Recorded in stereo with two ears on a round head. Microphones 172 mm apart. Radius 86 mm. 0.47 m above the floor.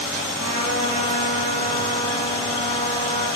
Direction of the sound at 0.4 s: 80° right.